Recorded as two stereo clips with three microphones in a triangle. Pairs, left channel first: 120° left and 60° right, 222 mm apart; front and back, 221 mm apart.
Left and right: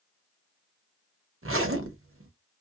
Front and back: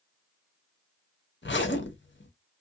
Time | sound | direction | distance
1.4 | a zipper | 35° right | 0.7 m